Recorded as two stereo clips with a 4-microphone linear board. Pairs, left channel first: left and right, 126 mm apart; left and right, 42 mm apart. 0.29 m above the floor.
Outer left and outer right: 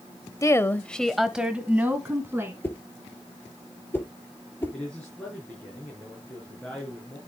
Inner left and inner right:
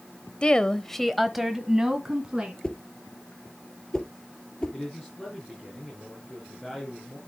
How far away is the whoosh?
About 2.5 m.